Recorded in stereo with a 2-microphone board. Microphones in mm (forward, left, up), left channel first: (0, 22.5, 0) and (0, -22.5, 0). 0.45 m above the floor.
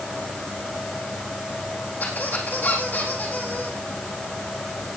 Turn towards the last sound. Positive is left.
turn(degrees=40)  # may be behind; listen again after turning